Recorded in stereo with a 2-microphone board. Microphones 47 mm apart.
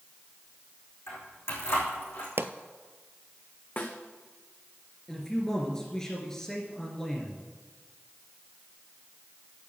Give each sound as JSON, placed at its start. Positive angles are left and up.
{"t": 1.1, "sound": "keys jangling", "side_deg": 65, "distance_m": 5.0}
{"t": 2.4, "sound": "a pop", "side_deg": -65, "distance_m": 0.7}
{"t": 3.8, "sound": "a snare drum", "side_deg": 45, "distance_m": 1.8}
{"t": 5.1, "sound": "a man speaking", "side_deg": 10, "distance_m": 2.5}